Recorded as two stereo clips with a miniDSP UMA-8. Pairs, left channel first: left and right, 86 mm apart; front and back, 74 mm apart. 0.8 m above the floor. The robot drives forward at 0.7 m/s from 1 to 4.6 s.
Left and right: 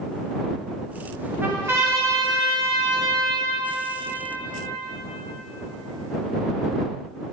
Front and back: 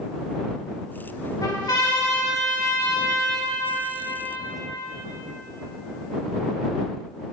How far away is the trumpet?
About 1.8 m.